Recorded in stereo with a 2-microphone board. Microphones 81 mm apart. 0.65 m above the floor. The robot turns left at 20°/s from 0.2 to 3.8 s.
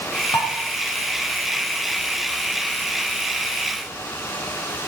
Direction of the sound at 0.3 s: 80° left.